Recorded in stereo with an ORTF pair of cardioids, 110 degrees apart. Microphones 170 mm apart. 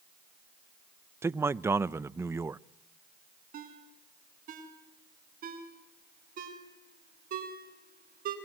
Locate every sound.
1.2 s a man speaking: 15° right, 0.6 m
3.5 s a ringtone: 55° right, 5.5 m